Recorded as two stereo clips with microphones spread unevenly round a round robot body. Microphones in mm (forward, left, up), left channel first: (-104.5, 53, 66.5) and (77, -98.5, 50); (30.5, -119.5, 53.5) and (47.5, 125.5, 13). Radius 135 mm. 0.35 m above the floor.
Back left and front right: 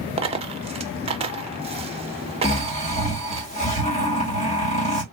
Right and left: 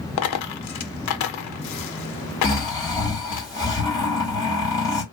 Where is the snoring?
175° right, 1.8 m.